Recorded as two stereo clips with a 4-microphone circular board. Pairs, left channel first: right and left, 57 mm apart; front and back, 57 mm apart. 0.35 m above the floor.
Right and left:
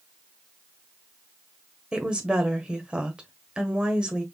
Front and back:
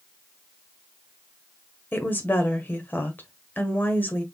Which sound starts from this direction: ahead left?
A woman speaking, at 1.9 s.